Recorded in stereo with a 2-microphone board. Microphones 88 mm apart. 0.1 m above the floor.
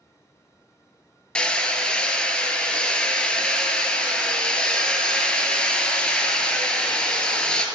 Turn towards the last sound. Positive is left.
turn(degrees=10)  # may be behind; listen again after turning